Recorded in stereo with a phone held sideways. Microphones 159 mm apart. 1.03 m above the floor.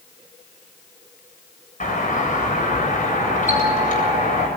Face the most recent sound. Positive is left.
turn(degrees=55)  # may be behind; listen again after turning